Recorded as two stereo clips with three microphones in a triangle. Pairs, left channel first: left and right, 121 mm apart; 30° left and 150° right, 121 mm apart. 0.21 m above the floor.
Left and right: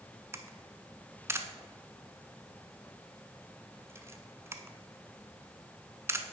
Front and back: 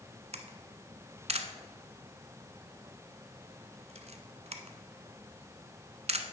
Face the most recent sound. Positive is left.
turn(degrees=-155)